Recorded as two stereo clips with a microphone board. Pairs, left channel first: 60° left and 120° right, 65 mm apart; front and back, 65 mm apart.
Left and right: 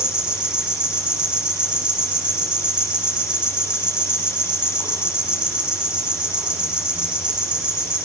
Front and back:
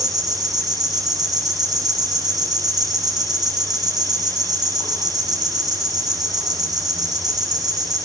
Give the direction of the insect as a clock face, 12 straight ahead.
6 o'clock.